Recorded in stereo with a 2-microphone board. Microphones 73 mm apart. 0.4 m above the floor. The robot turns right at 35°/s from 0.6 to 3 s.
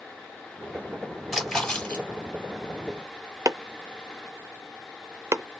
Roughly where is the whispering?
No whispering in this recording.